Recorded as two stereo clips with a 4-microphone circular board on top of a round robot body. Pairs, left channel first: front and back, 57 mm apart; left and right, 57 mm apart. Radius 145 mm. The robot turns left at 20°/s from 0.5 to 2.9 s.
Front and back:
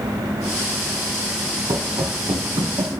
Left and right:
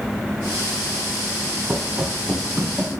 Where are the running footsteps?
155° right, 0.7 m; by 2.9 s 165° right, 1.4 m.